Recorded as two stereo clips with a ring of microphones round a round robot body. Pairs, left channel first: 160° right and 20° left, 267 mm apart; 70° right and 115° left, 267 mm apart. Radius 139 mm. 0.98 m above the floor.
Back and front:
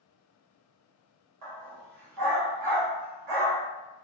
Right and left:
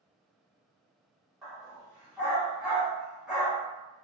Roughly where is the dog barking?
Ahead left.